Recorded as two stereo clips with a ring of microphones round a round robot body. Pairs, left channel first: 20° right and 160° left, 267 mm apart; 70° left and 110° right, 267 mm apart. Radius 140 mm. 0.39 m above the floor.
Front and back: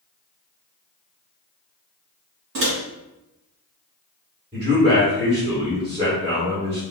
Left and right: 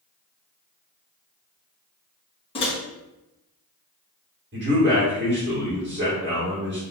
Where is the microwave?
135° left, 1.5 m.